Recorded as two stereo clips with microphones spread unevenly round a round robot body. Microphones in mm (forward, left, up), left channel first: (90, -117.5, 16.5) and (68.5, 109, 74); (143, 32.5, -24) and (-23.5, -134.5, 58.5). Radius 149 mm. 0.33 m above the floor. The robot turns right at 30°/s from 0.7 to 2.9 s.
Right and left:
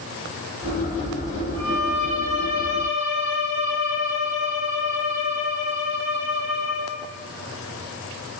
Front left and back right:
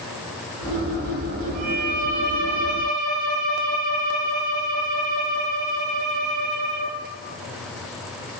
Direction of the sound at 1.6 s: 175° right.